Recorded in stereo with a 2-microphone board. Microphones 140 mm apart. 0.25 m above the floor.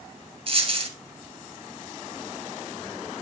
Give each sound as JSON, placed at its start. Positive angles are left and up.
{"t": 0.5, "sound": "a dropped coin", "side_deg": -40, "distance_m": 2.0}